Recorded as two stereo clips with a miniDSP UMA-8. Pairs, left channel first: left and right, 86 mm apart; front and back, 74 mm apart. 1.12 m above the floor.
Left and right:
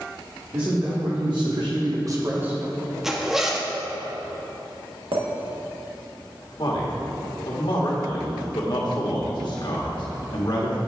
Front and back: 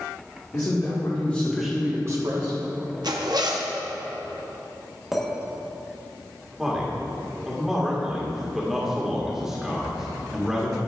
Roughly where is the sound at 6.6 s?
Left.